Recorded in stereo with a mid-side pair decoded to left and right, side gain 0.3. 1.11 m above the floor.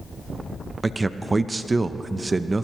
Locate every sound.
0.8 s a man speaking: 40° right, 0.7 m